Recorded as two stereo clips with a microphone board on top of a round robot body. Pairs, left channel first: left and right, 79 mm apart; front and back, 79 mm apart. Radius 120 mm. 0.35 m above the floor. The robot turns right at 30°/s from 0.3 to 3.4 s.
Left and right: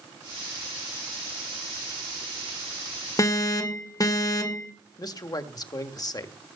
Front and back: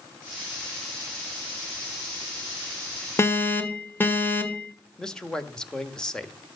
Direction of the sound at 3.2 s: 55° left.